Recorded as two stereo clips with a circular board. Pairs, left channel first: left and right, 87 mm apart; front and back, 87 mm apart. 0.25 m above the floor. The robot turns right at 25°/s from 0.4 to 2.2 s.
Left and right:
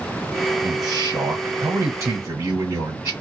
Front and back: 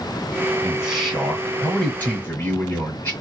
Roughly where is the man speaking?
Right.